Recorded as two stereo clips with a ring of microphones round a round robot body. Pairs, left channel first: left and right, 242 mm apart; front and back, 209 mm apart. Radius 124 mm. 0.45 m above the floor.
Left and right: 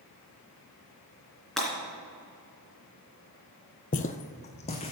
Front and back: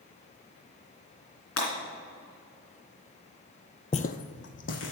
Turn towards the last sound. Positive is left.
turn(degrees=25)